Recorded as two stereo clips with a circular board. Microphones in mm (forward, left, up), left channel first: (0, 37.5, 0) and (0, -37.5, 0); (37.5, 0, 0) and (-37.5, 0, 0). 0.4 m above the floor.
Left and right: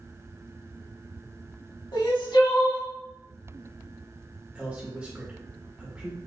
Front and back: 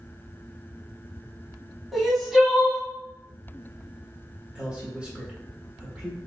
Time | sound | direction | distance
1.9 | crying | 90° left | 0.7 m
4.5 | a man speaking | 130° right | 1.1 m